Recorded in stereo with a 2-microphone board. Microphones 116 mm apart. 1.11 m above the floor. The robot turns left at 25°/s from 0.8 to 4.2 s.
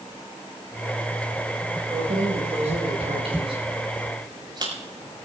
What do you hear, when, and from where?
1.9 s keys jangling: 80° right, 5 m; by 4.7 s 40° right (ahead or behind), 5 m